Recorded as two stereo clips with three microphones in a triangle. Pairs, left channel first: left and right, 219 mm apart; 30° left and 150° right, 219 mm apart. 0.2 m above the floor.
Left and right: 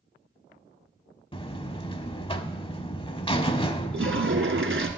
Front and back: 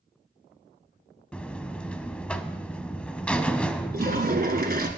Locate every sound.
1.3 s a buzzer: 105° left, 0.6 m
3.9 s a toilet flushing: 105° right, 1.1 m